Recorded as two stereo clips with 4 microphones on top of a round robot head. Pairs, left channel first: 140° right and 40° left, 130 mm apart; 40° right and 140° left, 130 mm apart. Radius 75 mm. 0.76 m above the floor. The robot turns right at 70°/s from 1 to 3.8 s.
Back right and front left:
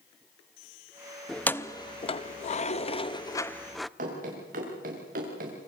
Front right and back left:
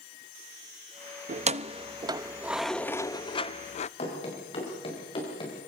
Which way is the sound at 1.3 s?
135° left.